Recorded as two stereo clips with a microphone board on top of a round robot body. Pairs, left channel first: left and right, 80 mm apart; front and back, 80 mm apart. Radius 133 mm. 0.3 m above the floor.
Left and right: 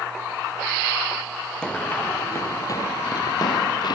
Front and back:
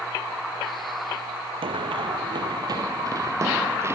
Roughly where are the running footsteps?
Behind.